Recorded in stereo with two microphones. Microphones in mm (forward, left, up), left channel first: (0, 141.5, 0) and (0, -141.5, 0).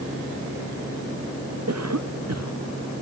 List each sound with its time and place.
1.7 s a cough: 60° right (ahead or behind)